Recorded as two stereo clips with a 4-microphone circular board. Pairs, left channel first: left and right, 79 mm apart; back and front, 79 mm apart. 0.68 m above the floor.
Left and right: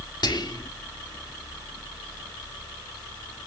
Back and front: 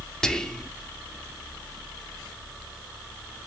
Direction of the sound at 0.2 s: 100° left.